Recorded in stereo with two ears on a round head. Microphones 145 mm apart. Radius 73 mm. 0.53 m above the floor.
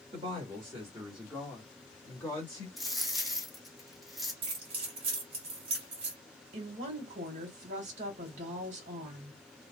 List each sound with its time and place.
0.1 s a woman speaking: 35° right (ahead or behind), 1.3 m; by 2.7 s 20° left (ahead or behind), 1.6 m
2.8 s a dropped coin: centre (ahead or behind), 1.2 m
4.4 s keys jangling: 35° right (ahead or behind), 1.4 m
6.5 s a woman speaking: 45° right (ahead or behind), 1.5 m